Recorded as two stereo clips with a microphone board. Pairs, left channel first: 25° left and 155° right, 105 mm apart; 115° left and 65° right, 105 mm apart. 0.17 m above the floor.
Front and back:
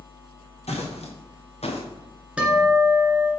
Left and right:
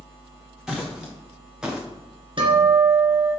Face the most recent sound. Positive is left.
turn(degrees=-80)